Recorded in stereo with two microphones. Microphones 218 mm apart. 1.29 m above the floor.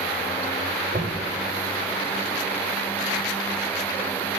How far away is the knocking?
About 5 m.